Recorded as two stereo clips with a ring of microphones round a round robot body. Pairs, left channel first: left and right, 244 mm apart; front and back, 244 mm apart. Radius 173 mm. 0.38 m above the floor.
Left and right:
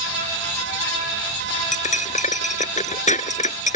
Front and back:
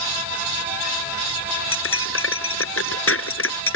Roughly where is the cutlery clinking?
Ahead left.